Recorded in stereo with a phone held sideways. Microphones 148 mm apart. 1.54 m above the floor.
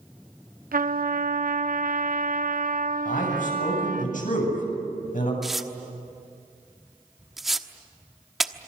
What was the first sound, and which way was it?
A trumpet, 70° right (ahead or behind).